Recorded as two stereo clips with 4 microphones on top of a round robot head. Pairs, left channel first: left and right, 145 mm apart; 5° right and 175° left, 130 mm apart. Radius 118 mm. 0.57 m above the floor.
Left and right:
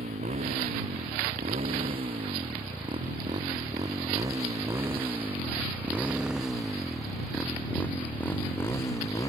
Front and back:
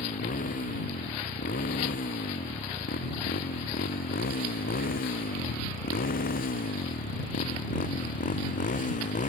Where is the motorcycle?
35° right; by 9.3 s 20° left.